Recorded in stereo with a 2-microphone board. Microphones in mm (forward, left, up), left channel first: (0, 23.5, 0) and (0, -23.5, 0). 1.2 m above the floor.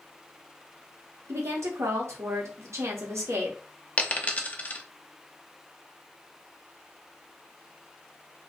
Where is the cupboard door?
No cupboard door in this recording.